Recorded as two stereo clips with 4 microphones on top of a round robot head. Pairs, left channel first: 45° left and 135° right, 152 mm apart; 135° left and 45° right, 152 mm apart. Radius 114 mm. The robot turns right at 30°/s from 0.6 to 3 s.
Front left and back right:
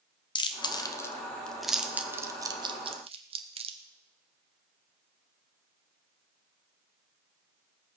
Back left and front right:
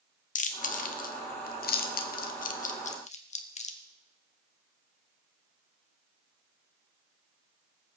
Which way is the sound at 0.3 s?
105° left.